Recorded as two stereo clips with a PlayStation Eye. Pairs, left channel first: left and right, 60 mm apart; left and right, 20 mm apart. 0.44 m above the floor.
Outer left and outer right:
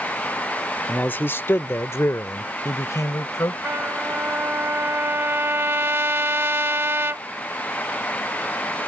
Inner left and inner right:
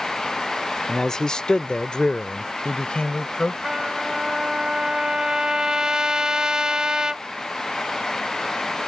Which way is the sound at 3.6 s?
40° right (ahead or behind).